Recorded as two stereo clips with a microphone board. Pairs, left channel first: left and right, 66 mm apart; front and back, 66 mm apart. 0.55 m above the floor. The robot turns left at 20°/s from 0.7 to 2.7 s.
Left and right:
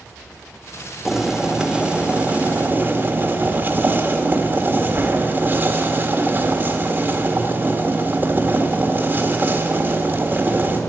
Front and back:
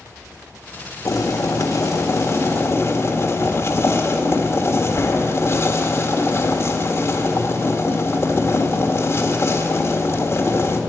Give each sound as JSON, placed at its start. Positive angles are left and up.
{"t": 1.1, "sound": "boiling", "azimuth_deg": -5, "distance_m": 1.4}